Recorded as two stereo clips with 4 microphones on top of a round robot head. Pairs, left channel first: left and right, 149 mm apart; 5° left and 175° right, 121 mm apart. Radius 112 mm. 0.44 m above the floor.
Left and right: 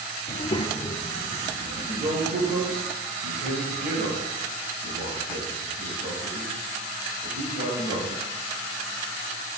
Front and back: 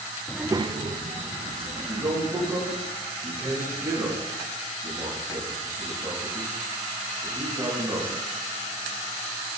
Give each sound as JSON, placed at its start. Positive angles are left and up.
{"t": 0.3, "sound": "a child speaking", "azimuth_deg": 80, "distance_m": 0.5}
{"t": 1.8, "sound": "a man speaking", "azimuth_deg": -115, "distance_m": 3.5}